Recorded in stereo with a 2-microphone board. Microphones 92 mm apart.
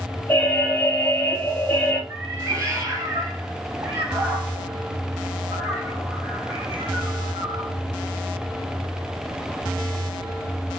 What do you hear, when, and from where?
0.3 s an alarm: 20° left (ahead or behind), 1.4 m
2.1 s a cat meowing: 35° right (ahead or behind), 2.0 m